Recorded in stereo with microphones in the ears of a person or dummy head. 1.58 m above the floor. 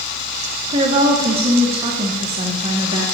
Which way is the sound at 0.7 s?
35° right (ahead or behind).